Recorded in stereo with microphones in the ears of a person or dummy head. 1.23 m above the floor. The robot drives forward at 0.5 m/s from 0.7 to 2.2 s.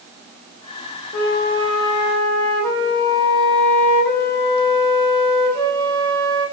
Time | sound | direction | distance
1.1 | a flute | 40° left (ahead or behind) | 0.5 m